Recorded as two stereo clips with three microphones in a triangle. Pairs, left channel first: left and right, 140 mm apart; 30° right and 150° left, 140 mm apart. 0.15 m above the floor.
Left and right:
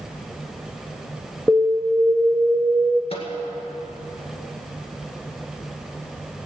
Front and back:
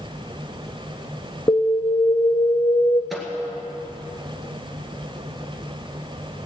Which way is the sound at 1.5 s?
15° left.